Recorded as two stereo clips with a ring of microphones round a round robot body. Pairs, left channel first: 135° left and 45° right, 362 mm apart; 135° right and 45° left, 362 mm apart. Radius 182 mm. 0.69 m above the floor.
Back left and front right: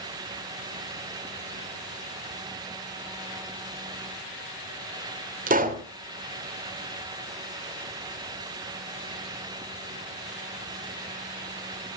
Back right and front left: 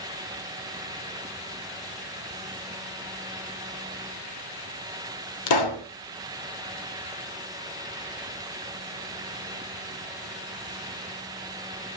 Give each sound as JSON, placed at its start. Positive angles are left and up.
{"t": 5.5, "sound": "a pop", "azimuth_deg": -115, "distance_m": 2.5}